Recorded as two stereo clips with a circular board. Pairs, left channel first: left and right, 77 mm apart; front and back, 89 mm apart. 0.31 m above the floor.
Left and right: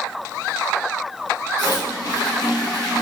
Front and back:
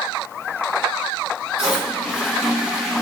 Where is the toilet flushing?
95° left, 1.5 m.